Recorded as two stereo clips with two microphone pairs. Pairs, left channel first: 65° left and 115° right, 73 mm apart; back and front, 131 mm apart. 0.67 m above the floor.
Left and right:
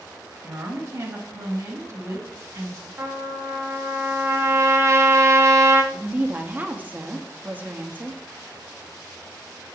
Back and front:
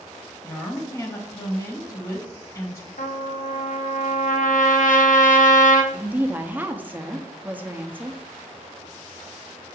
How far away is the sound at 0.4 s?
About 1.1 m.